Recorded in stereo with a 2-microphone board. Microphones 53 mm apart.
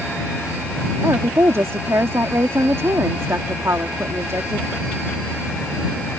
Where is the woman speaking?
55° right (ahead or behind).